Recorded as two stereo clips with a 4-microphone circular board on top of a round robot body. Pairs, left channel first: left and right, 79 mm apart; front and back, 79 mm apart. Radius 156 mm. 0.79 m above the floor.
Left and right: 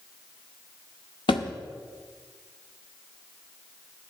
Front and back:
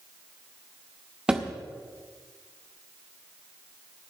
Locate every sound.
1.3 s a thud: 100° left, 0.5 m